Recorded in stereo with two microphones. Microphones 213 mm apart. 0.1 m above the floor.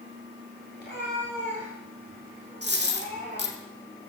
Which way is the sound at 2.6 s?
55° right (ahead or behind).